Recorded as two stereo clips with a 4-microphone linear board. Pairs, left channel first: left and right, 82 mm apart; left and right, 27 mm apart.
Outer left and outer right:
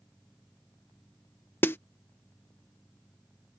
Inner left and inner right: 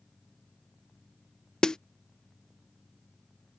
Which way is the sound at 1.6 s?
25° left (ahead or behind).